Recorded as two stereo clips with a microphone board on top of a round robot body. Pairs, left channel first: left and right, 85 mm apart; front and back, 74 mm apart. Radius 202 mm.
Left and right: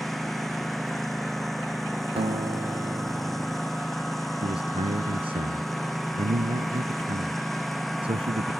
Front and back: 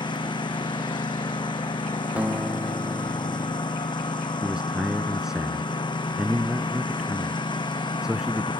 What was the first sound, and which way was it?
A lawn mower, straight ahead.